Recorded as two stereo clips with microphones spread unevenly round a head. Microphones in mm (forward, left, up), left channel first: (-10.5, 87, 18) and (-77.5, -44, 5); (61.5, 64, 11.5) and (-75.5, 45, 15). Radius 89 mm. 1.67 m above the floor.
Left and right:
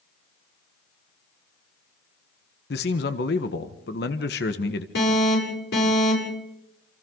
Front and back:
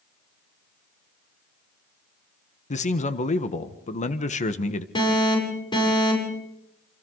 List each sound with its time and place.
2.7 s a man speaking: 40° left, 1.3 m
5.0 s an alarm: 65° left, 8 m